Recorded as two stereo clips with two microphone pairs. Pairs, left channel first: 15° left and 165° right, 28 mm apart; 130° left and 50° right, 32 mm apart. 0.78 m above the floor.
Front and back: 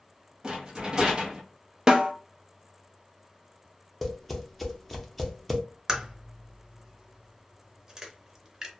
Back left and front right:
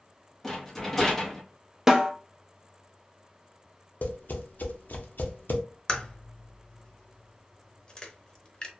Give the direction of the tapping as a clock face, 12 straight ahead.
9 o'clock.